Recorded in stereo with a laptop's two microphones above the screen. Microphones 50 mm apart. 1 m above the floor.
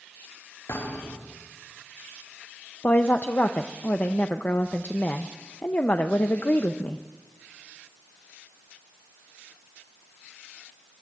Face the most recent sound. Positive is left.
turn(degrees=40)  # may be behind; listen again after turning